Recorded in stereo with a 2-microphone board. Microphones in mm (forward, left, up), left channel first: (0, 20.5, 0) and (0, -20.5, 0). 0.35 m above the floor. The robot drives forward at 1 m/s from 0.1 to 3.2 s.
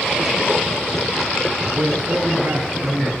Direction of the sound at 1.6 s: 50° right (ahead or behind).